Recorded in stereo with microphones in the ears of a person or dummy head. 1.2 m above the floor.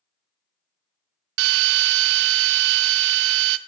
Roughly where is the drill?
Right.